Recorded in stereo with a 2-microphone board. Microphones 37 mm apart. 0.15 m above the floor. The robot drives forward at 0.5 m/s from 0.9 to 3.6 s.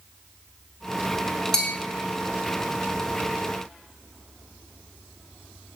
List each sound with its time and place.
1.5 s a bell: 20° left (ahead or behind), 0.7 m